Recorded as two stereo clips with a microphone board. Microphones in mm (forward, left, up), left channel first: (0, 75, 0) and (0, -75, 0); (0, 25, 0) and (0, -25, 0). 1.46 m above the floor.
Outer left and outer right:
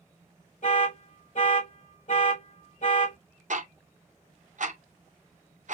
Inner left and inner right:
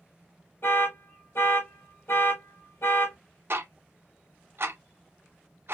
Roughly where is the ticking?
Right.